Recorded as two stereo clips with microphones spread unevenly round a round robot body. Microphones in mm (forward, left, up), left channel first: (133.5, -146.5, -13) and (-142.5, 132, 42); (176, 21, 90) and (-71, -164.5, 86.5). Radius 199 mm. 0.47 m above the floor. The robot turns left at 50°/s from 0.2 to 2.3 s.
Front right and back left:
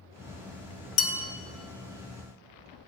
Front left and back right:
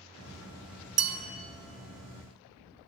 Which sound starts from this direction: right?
A bell, at 1.0 s.